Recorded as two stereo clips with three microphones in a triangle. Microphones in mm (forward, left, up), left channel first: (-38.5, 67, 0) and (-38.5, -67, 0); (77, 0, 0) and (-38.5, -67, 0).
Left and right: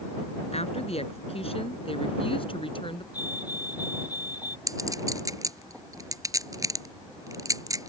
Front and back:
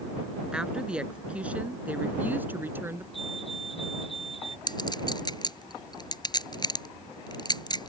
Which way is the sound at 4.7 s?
25° right.